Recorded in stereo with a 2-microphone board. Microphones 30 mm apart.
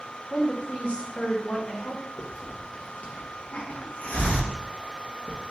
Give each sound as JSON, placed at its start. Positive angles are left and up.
{"t": 0.3, "sound": "a woman speaking", "side_deg": 45, "distance_m": 1.0}
{"t": 2.2, "sound": "a hiss", "side_deg": 65, "distance_m": 1.0}